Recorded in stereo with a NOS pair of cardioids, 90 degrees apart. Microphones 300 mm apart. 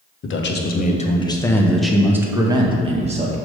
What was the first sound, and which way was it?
A man speaking, 45° left.